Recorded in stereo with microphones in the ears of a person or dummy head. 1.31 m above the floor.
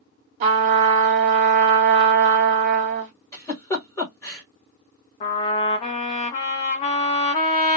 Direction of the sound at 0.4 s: 35° right (ahead or behind).